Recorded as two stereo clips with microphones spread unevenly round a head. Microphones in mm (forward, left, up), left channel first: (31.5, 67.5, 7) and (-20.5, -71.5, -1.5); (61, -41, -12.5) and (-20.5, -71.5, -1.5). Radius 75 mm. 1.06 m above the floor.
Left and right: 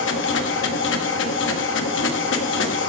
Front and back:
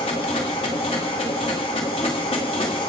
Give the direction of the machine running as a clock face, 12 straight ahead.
9 o'clock.